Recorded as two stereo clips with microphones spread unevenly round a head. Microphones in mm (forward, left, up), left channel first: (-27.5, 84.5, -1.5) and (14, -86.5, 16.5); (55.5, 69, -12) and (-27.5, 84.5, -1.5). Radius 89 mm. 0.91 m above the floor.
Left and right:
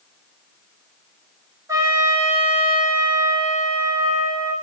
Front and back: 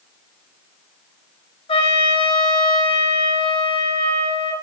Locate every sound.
1.7 s a trumpet: 5° right, 1.8 m